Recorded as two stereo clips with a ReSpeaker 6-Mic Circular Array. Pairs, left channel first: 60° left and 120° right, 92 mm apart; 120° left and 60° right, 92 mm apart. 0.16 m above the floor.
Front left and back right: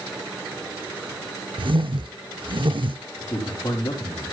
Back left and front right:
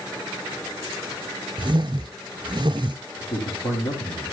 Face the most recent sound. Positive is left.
turn(degrees=105)